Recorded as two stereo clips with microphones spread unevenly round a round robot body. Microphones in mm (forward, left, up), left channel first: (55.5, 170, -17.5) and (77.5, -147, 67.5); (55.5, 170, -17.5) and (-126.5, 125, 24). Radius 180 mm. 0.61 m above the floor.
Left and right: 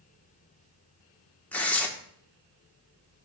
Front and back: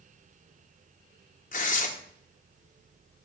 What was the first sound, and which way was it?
Tearing paper, 20° left.